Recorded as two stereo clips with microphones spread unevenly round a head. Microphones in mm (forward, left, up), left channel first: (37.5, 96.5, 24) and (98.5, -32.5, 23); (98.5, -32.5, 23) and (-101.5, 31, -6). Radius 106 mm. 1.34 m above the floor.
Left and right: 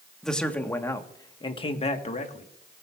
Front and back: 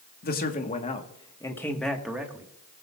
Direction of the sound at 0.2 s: 30° left.